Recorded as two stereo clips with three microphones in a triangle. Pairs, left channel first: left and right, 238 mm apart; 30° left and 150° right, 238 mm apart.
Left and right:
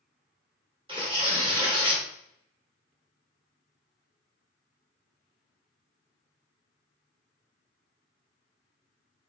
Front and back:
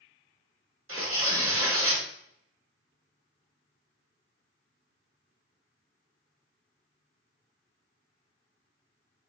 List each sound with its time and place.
0.9 s tearing paper: 160° right, 1.4 m